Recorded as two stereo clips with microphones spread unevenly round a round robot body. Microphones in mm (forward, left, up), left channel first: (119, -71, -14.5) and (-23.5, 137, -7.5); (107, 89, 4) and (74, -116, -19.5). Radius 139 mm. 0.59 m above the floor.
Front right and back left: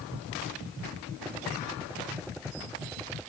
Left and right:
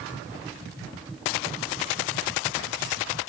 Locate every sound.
Only background noise.